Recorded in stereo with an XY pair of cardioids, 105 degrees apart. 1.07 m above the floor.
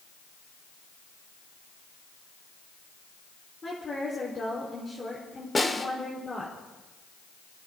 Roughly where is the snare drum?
Ahead.